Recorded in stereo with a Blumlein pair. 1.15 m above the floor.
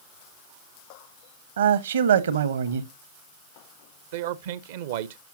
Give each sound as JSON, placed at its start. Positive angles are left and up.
{"t": 1.6, "sound": "a man speaking", "azimuth_deg": -65, "distance_m": 1.0}
{"t": 4.1, "sound": "a man speaking", "azimuth_deg": -55, "distance_m": 0.6}